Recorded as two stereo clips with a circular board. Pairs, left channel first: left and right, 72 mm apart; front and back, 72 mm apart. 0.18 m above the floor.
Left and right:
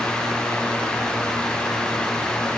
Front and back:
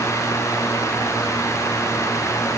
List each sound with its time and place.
Only background noise.